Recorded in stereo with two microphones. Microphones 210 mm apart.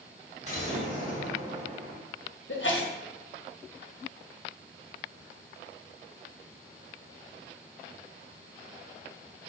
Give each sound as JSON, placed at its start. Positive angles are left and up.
{"t": 0.4, "sound": "an explosion", "side_deg": -35, "distance_m": 2.0}
{"t": 2.5, "sound": "a sneeze", "side_deg": 65, "distance_m": 0.9}